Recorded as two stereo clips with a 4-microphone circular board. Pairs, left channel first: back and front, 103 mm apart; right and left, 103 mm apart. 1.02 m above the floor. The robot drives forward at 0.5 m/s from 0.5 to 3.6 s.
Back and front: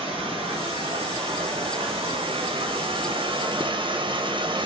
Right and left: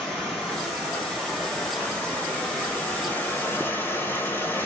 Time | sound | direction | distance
0.0 | running water | 10° right | 2.5 m